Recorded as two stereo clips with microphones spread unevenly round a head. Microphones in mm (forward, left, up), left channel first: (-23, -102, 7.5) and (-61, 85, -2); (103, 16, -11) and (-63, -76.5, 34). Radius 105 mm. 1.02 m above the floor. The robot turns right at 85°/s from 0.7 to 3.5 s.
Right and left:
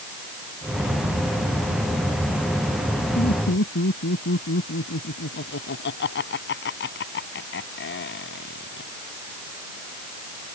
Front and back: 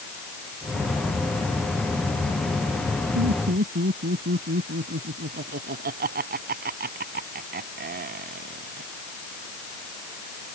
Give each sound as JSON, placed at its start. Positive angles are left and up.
{"t": 3.1, "sound": "laughter", "azimuth_deg": -140}